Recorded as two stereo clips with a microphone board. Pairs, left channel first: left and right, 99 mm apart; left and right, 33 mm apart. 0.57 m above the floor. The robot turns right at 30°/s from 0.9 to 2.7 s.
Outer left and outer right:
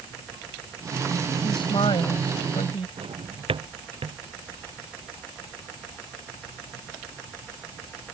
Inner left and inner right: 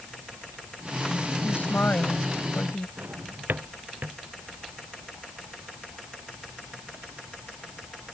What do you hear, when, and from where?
1.4 s a woman speaking: 60° left; by 2.9 s 95° left
3.0 s a drawer: 70° right (ahead or behind)